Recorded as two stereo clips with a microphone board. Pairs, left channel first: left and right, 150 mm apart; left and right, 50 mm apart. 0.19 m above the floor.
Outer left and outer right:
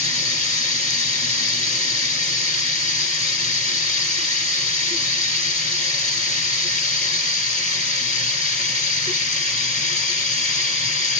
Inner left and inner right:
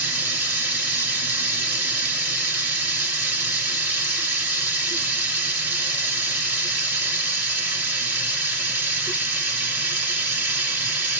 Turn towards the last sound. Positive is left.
turn(degrees=-45)  # may be behind; listen again after turning